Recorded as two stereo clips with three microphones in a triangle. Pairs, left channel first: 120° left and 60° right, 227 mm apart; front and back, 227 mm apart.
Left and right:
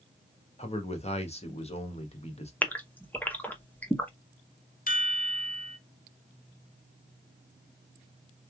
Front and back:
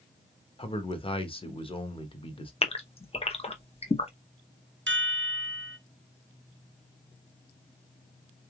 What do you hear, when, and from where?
0.6 s a man speaking: 65° left, 1.0 m
2.6 s a gasp: 45° left, 0.8 m
4.9 s a chime: 165° left, 0.7 m